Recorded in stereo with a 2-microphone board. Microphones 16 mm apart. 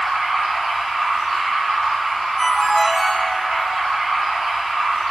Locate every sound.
0.0 s running water: 75° right (ahead or behind), 1.3 m
2.4 s a ringtone: 35° left (ahead or behind), 0.7 m